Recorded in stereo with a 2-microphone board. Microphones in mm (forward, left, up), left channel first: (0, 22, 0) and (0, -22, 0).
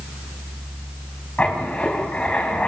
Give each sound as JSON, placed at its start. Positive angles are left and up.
{"t": 1.4, "sound": "writing", "side_deg": 25, "distance_m": 4.5}